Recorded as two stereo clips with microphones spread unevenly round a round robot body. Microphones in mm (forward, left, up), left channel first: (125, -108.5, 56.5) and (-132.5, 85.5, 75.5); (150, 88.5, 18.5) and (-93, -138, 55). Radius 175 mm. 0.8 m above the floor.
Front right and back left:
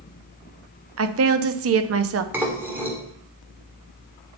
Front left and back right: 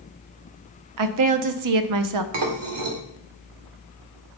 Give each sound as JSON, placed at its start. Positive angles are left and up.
{"t": 1.0, "sound": "a woman speaking", "azimuth_deg": -170, "distance_m": 0.8}
{"t": 2.3, "sound": "dishes clattering", "azimuth_deg": -135, "distance_m": 1.8}